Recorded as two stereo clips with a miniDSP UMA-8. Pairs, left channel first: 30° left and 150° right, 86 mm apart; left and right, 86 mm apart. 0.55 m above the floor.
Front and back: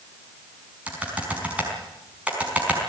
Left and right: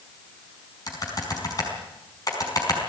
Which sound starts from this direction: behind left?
Typing on a keyboard, at 0.9 s.